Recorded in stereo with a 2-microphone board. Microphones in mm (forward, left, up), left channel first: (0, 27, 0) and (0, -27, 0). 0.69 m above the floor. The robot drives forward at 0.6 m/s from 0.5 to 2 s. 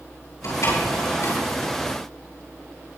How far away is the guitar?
I don't hear a guitar.